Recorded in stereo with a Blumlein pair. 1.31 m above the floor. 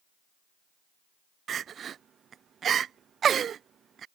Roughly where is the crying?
Ahead right.